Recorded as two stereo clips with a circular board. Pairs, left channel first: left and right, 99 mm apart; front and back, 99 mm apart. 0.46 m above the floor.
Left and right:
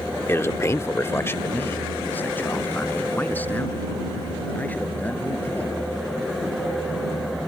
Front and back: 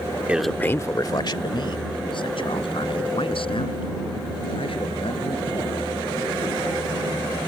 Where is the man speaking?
125° left; by 6.1 s 15° left.